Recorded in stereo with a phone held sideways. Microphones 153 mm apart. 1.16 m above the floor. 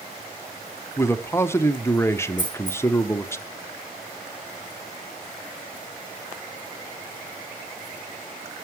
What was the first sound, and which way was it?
A man speaking, 15° left (ahead or behind).